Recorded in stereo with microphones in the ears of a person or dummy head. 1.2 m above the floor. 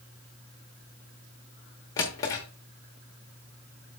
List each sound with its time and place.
2.0 s a drawer: 15° left (ahead or behind), 0.9 m